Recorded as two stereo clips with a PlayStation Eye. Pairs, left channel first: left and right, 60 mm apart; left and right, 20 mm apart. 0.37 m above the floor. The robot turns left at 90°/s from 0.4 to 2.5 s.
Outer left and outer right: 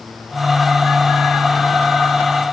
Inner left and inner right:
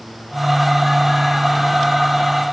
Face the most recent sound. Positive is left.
No sound to turn to.